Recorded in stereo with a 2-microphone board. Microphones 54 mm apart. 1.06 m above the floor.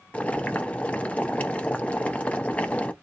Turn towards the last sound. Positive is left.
turn(degrees=25)  # may be behind; listen again after turning